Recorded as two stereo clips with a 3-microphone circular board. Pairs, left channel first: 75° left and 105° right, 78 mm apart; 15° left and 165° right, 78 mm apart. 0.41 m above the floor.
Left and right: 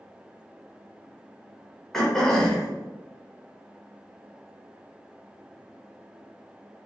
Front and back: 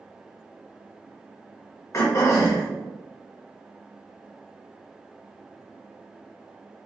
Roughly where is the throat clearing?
Ahead.